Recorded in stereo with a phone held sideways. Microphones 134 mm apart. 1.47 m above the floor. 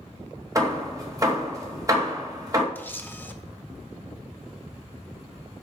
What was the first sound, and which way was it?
Hammering, 25° right (ahead or behind).